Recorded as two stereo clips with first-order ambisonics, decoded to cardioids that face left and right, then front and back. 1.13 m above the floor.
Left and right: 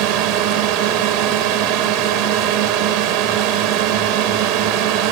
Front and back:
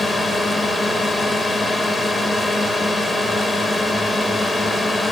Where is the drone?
80° right.